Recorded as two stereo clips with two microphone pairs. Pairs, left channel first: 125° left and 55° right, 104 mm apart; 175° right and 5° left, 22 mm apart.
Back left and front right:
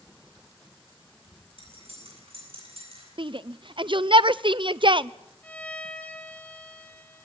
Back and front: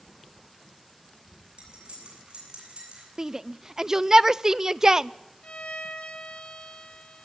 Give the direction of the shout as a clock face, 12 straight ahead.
2 o'clock.